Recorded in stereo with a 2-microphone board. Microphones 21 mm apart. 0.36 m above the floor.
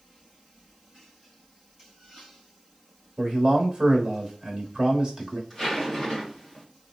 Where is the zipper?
10° left (ahead or behind), 2 m.